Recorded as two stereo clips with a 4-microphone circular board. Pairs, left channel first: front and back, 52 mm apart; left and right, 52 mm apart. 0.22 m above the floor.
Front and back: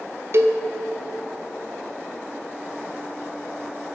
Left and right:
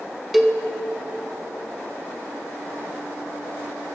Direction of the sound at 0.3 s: 175° right.